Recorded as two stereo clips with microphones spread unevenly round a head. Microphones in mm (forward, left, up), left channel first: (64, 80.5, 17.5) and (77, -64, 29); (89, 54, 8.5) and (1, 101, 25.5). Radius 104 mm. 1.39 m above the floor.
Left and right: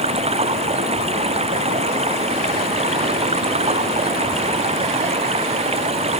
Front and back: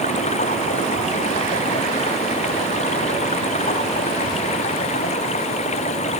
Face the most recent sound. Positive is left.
turn(degrees=-40)